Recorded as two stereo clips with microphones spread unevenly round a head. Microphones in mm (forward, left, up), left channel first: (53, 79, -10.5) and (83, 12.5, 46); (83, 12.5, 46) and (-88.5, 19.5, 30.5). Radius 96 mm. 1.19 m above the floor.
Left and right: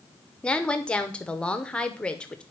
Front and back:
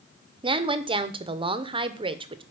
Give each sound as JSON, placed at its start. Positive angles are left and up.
{"t": 0.4, "sound": "a woman speaking", "azimuth_deg": 130, "distance_m": 0.7}